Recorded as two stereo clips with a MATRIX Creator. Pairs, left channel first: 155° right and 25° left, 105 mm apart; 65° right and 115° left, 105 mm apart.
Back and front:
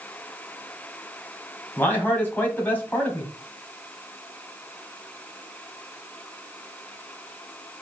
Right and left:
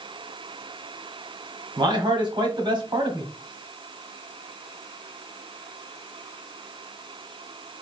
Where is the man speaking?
135° left, 1.8 m.